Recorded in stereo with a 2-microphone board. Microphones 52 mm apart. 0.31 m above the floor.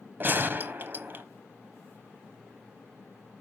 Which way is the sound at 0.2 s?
40° right (ahead or behind).